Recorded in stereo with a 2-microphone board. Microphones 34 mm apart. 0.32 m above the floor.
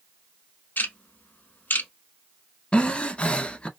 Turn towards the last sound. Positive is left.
turn(degrees=30)  # may be behind; listen again after turning